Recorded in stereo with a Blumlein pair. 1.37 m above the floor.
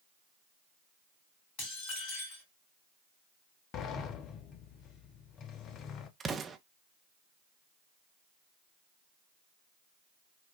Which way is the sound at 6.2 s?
15° right.